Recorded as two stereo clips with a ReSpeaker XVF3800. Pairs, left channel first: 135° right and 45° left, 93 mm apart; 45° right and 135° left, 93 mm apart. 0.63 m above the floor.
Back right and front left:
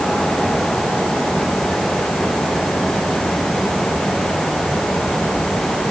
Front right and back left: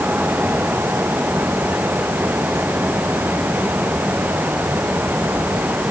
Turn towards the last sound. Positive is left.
No sound to turn to.